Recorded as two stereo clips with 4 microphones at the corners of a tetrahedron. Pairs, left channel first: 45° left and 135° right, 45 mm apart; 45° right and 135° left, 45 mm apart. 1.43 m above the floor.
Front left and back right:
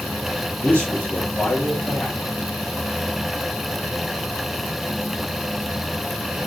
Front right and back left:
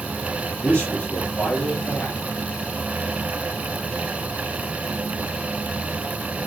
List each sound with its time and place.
0.6 s a man speaking: 5° right, 2.5 m